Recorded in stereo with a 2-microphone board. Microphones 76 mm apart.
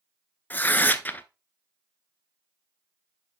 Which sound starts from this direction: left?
Tearing paper, at 0.5 s.